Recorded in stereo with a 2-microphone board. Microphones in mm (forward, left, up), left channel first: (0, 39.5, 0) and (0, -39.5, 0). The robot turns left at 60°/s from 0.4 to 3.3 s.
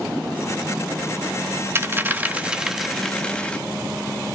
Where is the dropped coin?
30° right (ahead or behind), 0.8 m; by 3.6 s 15° left (ahead or behind), 0.8 m.